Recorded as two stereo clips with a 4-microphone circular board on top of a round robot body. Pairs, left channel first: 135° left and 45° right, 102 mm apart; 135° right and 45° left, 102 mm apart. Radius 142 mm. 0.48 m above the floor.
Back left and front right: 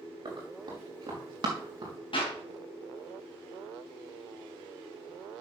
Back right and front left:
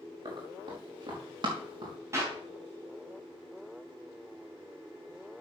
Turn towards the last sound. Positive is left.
turn(degrees=105)